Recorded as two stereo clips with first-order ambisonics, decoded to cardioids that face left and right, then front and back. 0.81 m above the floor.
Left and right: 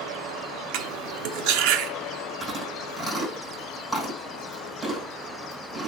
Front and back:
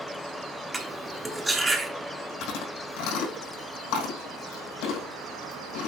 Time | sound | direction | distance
0.7 | cutlery clinking | 100° right | 0.9 m
2.4 | chewing | straight ahead | 5.5 m